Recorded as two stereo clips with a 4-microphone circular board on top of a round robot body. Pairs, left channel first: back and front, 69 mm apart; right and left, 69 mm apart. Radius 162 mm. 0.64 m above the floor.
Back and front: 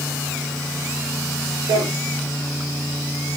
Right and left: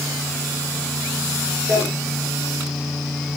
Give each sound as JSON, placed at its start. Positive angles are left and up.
{"t": 1.7, "sound": "a drawer", "azimuth_deg": 30, "distance_m": 7.0}